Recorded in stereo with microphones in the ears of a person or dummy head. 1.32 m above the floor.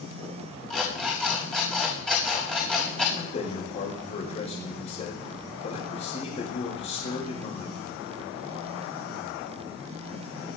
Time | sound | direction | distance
0.7 | an alarm clock | 5° left (ahead or behind) | 5 m
3.2 | a man speaking | 35° left (ahead or behind) | 5 m